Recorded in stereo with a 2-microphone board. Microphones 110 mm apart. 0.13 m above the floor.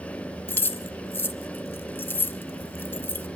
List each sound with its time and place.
0.5 s keys jangling: 20° left (ahead or behind), 0.8 m